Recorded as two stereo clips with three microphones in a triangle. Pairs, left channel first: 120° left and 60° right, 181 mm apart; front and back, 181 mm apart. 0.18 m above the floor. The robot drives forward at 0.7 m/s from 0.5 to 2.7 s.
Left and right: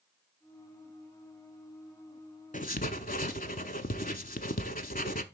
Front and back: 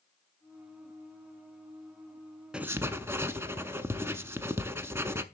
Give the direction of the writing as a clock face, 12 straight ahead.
9 o'clock.